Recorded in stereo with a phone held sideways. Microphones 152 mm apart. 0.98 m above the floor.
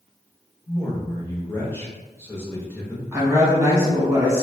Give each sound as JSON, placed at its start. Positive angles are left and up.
{"t": 0.7, "sound": "a man speaking", "side_deg": 15, "distance_m": 1.0}
{"t": 3.1, "sound": "a woman speaking", "side_deg": -15, "distance_m": 0.9}